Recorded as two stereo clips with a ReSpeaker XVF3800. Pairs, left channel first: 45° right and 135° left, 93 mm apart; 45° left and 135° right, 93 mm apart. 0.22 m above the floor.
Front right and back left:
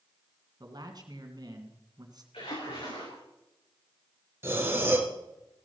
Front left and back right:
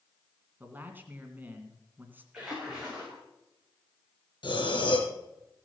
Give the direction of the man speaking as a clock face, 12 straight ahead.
7 o'clock.